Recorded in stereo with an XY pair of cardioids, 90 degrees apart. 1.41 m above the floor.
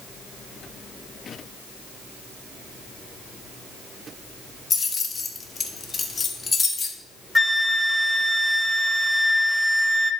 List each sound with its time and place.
4.7 s keys jangling: 40° left, 1.7 m
7.3 s a flute: 10° left, 0.8 m